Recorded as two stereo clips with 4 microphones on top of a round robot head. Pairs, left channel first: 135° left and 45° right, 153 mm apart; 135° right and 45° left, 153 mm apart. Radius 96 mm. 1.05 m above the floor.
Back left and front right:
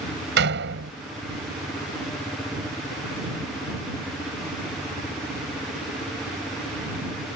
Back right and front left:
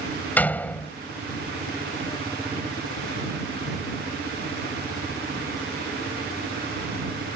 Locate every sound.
0.4 s a door slam: 55° right